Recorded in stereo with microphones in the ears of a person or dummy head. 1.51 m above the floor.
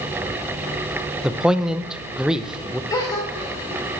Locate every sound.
1.2 s a man speaking: centre (ahead or behind), 0.7 m
2.9 s a gasp: 15° left (ahead or behind), 2.5 m